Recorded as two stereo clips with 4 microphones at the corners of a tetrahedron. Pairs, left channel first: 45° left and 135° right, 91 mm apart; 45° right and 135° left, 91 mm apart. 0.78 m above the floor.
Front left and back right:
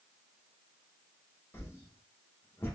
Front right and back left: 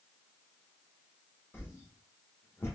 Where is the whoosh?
Straight ahead, 1.0 m.